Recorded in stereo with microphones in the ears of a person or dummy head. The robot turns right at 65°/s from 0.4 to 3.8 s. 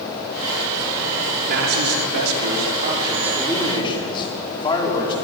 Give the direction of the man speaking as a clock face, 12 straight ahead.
4 o'clock.